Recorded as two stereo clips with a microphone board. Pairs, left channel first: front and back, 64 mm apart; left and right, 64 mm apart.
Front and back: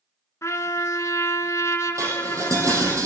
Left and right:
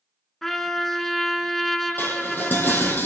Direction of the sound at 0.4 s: 5° left.